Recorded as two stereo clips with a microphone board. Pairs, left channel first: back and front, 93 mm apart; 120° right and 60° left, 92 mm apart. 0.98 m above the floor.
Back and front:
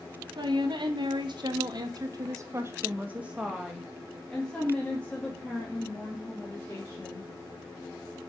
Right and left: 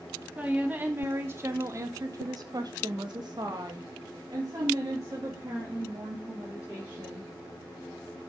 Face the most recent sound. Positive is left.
turn(degrees=120)